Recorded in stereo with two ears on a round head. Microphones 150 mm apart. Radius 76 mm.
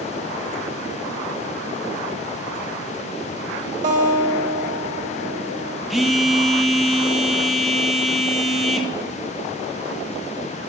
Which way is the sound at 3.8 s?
45° right (ahead or behind).